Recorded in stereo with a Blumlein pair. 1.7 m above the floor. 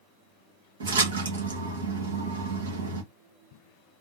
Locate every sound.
0.8 s a splash: 65° right, 1.4 m